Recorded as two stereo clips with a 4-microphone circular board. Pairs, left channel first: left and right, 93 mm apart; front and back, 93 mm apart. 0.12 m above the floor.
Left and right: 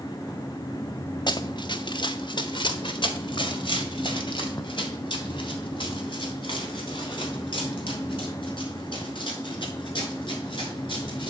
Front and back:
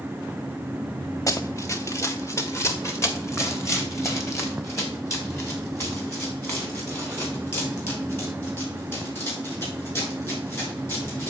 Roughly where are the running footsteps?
Ahead left.